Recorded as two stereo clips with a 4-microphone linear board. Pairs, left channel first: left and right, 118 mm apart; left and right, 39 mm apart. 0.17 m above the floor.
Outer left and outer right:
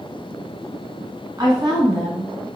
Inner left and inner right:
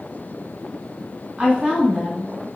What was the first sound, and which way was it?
A woman speaking, 35° right (ahead or behind).